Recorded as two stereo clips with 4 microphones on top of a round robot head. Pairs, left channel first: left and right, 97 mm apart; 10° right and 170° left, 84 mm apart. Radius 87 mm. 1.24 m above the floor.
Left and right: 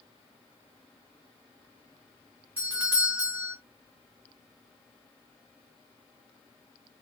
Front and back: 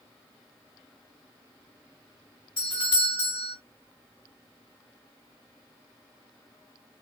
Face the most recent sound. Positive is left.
turn(degrees=-20)